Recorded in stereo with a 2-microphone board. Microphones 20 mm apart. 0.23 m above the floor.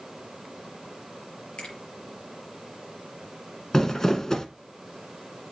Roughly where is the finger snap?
Left.